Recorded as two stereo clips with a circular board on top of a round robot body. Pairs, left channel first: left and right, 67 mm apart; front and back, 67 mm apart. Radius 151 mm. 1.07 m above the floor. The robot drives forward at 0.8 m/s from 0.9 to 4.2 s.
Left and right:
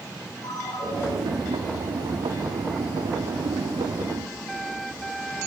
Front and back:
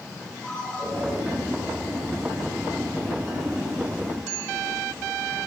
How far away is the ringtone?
About 9.5 m.